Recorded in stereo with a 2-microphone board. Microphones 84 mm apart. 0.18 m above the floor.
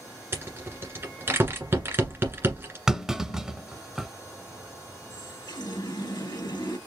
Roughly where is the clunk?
Centre.